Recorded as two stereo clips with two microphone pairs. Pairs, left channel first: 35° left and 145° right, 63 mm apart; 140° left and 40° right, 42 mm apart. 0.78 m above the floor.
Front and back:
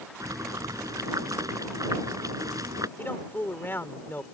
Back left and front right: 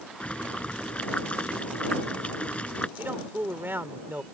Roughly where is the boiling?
Behind.